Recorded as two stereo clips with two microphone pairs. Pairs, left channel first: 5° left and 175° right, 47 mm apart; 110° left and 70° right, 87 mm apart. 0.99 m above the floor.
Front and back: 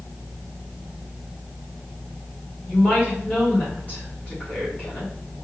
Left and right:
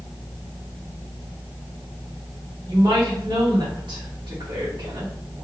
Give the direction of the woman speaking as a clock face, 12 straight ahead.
2 o'clock.